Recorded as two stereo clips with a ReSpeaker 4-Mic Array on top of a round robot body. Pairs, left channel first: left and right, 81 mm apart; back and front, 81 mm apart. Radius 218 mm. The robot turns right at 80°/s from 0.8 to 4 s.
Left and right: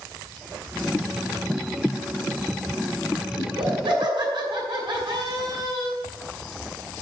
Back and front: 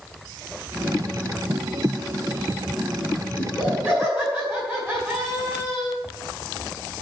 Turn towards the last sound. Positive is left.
turn(degrees=-70)